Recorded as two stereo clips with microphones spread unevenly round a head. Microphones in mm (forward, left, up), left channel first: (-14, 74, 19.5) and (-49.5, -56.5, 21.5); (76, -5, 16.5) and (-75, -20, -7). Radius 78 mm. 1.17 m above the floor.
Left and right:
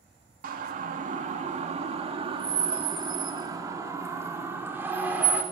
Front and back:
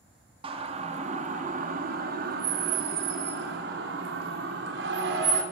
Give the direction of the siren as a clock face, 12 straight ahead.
4 o'clock.